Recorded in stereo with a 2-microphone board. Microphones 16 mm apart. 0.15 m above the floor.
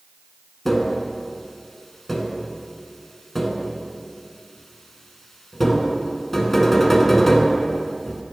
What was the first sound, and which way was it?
Tapping, 10° left (ahead or behind).